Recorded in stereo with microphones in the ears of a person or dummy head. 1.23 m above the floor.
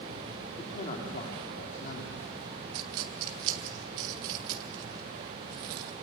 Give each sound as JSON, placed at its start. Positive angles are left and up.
{"t": 0.6, "sound": "a man speaking", "side_deg": 25, "distance_m": 3.0}
{"t": 2.7, "sound": "a dropped coin", "side_deg": -20, "distance_m": 0.7}